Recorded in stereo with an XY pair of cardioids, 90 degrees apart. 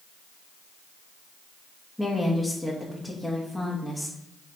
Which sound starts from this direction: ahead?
A woman speaking, at 2.0 s.